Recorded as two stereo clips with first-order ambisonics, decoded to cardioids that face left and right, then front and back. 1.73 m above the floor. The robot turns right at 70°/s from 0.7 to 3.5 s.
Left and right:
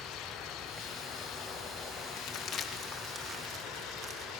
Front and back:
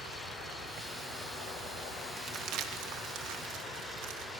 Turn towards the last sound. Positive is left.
turn(degrees=-140)